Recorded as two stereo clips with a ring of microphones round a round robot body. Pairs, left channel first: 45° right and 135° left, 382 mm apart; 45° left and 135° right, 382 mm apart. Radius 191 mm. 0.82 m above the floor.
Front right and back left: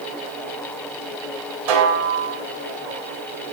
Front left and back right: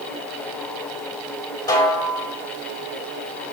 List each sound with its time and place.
1.7 s a snare drum: 125° left, 3 m